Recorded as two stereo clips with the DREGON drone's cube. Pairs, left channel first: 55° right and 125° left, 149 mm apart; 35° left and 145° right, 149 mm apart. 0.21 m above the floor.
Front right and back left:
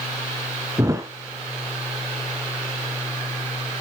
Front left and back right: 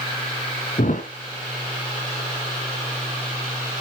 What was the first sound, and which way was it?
A thud, 55° left.